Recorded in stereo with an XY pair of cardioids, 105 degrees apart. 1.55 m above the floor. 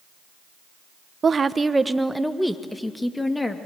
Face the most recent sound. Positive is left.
turn(degrees=20)